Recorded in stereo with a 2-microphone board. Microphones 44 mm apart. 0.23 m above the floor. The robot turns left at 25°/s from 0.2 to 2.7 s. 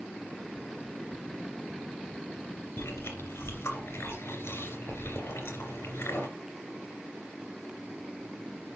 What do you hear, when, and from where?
2.8 s chewing: 60° left (ahead or behind), 3 m